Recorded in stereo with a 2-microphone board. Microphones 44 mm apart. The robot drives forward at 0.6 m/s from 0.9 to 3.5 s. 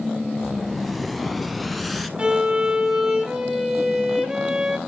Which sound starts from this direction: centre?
An explosion, at 0.4 s.